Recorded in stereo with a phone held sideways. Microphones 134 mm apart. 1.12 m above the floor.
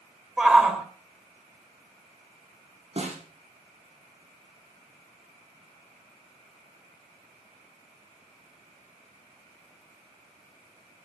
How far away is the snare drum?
About 8 m.